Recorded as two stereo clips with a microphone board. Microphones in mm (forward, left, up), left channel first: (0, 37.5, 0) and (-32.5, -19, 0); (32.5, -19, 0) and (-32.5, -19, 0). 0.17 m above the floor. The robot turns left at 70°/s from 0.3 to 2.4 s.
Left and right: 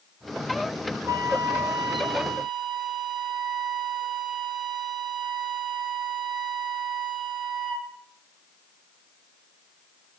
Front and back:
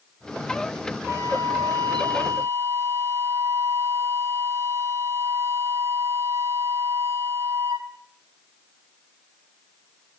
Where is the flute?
140° right, 1.6 m; by 7.9 s 130° left, 1.6 m.